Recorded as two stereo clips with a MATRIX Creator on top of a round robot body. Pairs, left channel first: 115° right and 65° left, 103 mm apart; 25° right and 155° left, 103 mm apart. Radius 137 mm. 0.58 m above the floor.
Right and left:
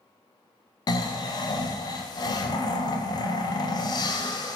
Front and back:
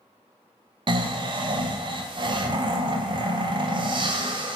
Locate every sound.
0.9 s snoring: 160° right, 0.5 m